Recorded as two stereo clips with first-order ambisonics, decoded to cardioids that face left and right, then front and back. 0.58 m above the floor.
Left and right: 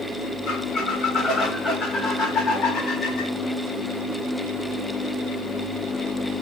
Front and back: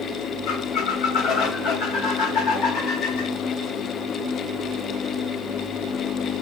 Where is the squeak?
30° left, 1.4 m.